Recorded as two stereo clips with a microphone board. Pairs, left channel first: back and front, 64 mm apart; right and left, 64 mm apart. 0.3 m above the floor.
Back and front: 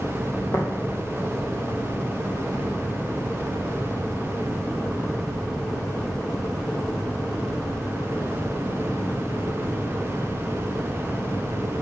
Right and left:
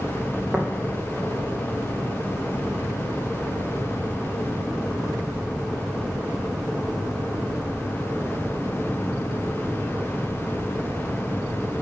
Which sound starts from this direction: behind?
Tapping, at 0.5 s.